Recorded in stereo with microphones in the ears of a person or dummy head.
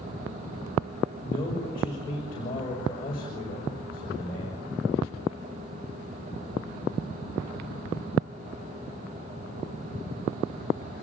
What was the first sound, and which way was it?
A man speaking, 25° left (ahead or behind).